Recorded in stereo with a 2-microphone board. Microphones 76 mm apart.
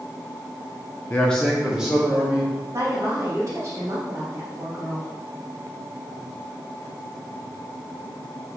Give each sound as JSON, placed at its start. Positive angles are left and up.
{"t": 1.1, "sound": "a man speaking", "side_deg": 25, "distance_m": 0.6}
{"t": 2.7, "sound": "a woman speaking", "side_deg": -45, "distance_m": 3.0}